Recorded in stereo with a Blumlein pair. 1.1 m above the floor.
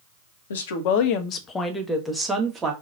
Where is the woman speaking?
65° left, 0.8 m; by 2.7 s 20° right, 1.1 m.